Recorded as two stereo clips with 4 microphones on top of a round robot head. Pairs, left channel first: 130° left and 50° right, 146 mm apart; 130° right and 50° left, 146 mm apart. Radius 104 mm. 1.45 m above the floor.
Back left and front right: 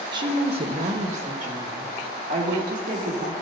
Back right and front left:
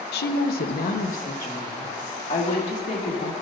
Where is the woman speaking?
115° right, 0.8 m; by 3.3 s 85° right, 3 m.